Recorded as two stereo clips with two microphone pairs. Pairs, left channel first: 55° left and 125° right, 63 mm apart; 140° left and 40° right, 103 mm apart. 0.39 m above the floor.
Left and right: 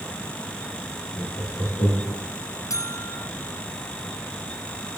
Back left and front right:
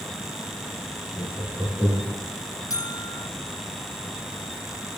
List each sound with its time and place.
1.1 s laughter: 55° left, 7 m; by 2.2 s 65° left, 7 m
2.7 s a buzzer: 85° left, 0.8 m